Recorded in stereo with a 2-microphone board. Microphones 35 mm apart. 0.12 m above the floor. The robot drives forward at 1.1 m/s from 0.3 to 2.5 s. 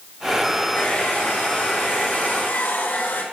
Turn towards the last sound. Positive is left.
turn(degrees=65)  # may be behind; listen again after turning